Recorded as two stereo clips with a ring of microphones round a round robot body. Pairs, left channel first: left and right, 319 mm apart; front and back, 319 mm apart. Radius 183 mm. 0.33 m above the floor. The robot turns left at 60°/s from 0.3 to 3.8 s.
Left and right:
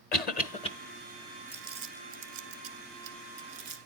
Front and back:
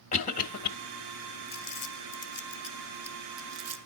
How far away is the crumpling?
About 1.3 m.